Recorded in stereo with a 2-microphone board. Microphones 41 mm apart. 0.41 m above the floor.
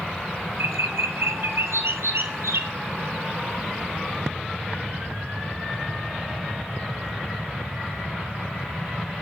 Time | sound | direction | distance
0.6 | a bird | 80° right | 1.0 m